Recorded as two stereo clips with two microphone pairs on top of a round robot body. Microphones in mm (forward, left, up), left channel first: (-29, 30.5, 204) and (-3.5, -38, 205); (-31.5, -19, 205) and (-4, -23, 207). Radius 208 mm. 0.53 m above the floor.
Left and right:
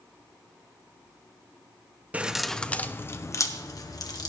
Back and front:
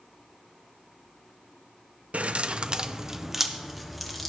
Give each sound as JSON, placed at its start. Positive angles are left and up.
{"t": 2.1, "sound": "keys jangling", "azimuth_deg": -5, "distance_m": 0.8}